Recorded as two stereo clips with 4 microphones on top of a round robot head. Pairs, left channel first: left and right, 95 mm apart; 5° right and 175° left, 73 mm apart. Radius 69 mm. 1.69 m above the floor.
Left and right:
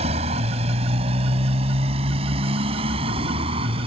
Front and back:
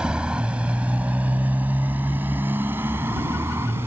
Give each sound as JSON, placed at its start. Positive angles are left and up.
{"t": 0.0, "sound": "a motorcycle", "azimuth_deg": -105}